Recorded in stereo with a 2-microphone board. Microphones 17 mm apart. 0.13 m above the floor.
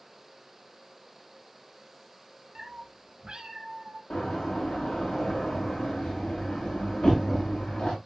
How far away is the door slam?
About 7.5 m.